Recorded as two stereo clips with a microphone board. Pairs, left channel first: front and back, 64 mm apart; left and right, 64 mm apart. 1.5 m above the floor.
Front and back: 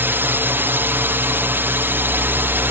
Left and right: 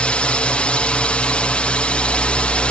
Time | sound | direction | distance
0.0 | a drone | 150° left | ?